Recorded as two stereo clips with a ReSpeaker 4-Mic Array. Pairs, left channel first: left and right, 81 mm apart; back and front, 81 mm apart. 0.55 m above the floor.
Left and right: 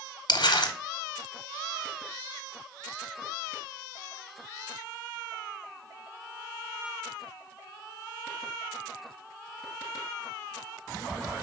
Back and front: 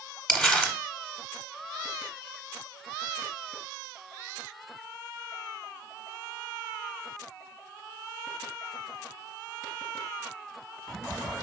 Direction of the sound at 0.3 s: 100° left.